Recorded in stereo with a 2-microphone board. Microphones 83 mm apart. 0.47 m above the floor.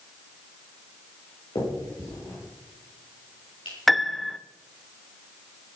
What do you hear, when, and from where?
1.6 s a finger snap: 70° left (ahead or behind), 7.5 m
3.9 s a piano: centre (ahead or behind), 0.6 m